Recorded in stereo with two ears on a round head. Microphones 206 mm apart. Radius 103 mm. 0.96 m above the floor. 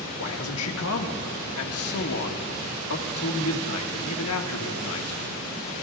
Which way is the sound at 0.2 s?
80° left.